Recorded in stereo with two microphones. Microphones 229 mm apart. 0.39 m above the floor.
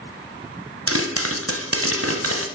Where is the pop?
75° right (ahead or behind), 1.0 m.